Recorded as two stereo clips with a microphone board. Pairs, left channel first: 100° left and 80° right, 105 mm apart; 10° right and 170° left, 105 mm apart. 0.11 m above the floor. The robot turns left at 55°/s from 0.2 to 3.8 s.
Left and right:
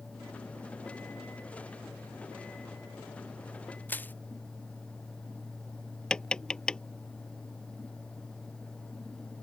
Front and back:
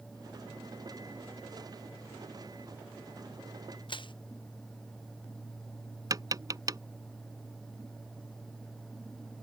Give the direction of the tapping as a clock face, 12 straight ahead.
6 o'clock.